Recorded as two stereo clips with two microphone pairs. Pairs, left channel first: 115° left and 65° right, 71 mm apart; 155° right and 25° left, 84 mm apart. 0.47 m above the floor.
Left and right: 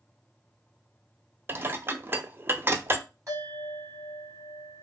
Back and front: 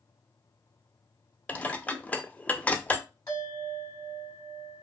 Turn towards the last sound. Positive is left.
turn(degrees=-105)